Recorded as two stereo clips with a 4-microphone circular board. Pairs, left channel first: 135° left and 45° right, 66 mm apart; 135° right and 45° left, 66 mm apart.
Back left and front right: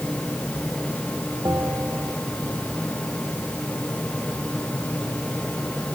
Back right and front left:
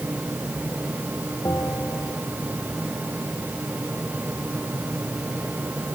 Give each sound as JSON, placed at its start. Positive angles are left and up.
{"t": 1.4, "sound": "a bell", "azimuth_deg": -90}